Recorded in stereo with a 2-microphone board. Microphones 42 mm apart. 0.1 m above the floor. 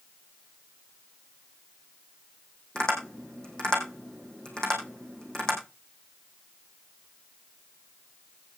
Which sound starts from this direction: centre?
Tapping, at 2.8 s.